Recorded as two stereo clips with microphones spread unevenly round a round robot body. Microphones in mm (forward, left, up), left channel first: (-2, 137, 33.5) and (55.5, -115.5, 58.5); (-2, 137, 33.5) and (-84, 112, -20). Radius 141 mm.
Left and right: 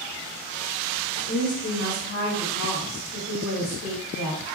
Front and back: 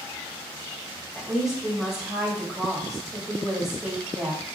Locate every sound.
1.1 s a woman speaking: 130° left, 1.8 m